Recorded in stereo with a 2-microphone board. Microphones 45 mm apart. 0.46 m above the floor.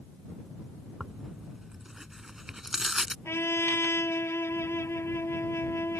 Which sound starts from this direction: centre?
Tearing paper, at 1.0 s.